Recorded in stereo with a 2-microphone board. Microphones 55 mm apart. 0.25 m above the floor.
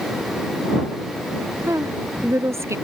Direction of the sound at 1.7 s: 60° right (ahead or behind).